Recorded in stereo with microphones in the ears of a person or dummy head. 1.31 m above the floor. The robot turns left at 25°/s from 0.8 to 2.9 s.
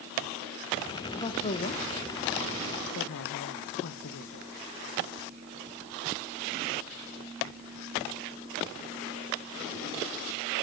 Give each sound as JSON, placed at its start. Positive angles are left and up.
{"t": 1.1, "sound": "a woman speaking", "side_deg": 25, "distance_m": 1.0}